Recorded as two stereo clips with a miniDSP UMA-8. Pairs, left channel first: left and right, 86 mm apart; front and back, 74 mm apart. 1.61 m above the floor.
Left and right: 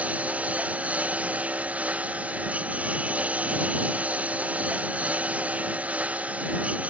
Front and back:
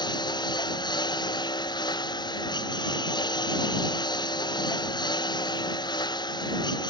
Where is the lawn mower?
15° right.